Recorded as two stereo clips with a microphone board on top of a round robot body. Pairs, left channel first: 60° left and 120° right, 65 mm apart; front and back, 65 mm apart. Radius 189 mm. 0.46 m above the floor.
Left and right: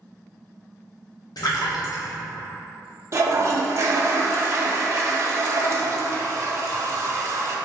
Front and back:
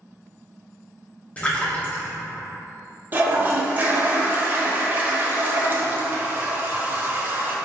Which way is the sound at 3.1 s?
135° right.